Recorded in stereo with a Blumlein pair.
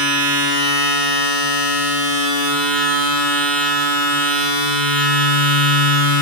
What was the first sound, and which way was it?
A machine running, 25° right.